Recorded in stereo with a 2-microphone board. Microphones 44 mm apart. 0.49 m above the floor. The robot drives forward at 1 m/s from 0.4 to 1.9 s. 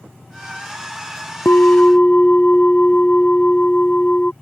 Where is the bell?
55° left (ahead or behind); by 4.3 s 35° left (ahead or behind).